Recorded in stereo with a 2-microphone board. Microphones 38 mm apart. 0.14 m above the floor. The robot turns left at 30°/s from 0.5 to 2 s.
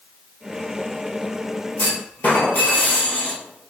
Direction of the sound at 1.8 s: 55° left (ahead or behind).